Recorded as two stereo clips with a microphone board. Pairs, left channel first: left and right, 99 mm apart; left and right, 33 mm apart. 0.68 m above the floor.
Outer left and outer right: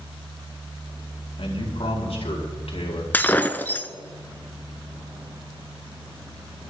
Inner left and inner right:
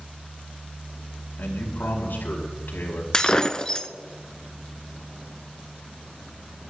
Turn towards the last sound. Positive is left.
turn(degrees=20)  # may be behind; listen again after turning